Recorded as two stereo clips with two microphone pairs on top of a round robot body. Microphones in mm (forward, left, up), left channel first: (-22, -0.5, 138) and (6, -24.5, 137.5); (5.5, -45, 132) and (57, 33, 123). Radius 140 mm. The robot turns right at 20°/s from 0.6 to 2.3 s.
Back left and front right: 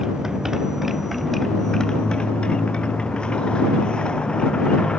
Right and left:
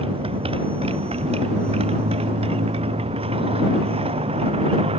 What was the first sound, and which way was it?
A motorcycle, 40° left.